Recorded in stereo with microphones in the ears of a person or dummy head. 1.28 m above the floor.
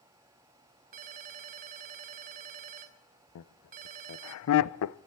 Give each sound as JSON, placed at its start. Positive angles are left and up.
{"t": 0.9, "sound": "a ringtone", "side_deg": -40, "distance_m": 0.9}
{"t": 3.4, "sound": "laughter", "side_deg": 75, "distance_m": 0.5}